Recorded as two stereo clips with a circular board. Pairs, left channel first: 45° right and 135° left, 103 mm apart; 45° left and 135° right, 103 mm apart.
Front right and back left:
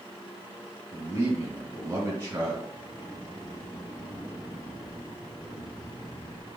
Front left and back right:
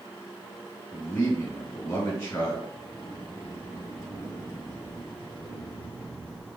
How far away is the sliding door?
About 1.9 m.